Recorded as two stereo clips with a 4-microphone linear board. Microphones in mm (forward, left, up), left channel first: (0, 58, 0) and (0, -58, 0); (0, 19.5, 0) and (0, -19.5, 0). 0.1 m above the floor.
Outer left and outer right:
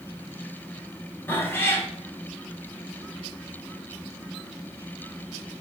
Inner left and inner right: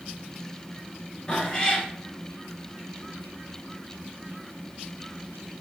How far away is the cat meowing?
About 0.7 m.